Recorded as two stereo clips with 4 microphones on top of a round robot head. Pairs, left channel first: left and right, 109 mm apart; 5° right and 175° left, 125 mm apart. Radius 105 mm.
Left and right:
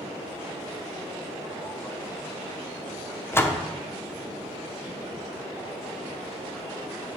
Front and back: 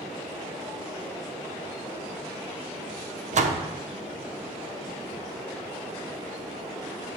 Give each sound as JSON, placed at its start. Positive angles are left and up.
{"t": 3.3, "sound": "a door slam", "azimuth_deg": 160, "distance_m": 0.8}